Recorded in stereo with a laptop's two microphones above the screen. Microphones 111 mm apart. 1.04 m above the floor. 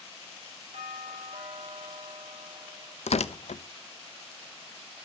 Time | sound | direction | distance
0.7 | a doorbell | 70° right (ahead or behind) | 7.5 m
3.1 | tearing paper | 75° left (ahead or behind) | 0.5 m